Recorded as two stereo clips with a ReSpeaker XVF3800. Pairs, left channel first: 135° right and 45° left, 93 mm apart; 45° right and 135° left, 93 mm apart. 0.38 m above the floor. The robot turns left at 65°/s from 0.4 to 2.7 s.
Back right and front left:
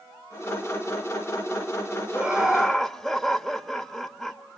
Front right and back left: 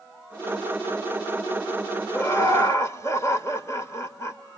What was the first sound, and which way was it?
Laughter, 15° right.